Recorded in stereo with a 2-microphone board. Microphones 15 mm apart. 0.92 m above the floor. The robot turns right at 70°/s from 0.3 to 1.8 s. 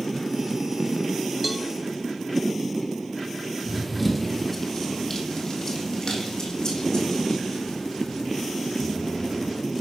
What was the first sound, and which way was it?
A cowbell, 5° right (ahead or behind).